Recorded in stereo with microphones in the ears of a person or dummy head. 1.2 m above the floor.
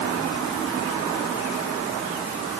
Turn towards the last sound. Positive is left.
No sound to turn to.